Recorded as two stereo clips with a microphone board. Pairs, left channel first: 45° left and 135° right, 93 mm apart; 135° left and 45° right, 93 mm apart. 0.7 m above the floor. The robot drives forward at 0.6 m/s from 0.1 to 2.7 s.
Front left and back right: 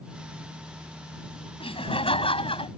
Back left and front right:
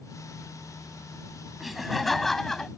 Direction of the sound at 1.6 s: 45° left.